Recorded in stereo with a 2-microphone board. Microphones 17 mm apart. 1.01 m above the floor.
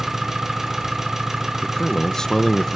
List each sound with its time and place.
0.0 s an engine running: 20° right (ahead or behind), 1.3 m
1.6 s a man speaking: 30° left (ahead or behind), 0.5 m